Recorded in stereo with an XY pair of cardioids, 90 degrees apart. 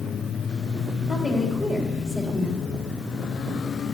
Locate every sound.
1.1 s a woman speaking: 35° left, 4 m